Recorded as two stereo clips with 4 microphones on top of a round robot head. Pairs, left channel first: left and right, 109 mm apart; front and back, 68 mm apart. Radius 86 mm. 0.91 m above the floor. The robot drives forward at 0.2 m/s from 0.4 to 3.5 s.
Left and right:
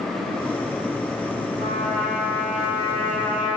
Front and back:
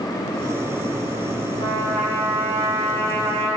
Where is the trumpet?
175° left, 1.1 m.